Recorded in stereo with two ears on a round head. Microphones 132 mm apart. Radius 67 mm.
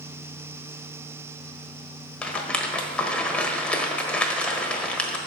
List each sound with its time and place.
2.2 s a rattle: 10° left (ahead or behind), 1.3 m